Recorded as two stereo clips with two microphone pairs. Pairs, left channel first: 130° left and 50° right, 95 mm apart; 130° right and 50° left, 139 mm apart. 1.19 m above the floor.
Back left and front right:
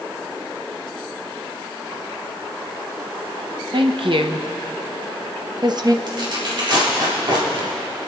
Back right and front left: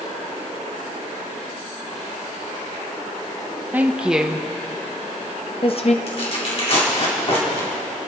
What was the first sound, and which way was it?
A woman speaking, 25° right.